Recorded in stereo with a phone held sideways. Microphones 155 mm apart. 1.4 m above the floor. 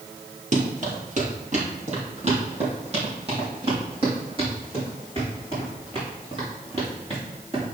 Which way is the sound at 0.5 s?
50° right (ahead or behind).